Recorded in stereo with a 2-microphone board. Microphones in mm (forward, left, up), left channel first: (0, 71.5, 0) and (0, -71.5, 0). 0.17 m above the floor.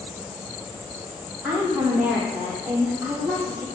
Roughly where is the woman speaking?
Centre.